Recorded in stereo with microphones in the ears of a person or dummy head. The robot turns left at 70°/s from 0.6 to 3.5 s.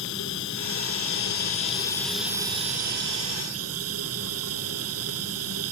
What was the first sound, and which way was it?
Running water, 110° left.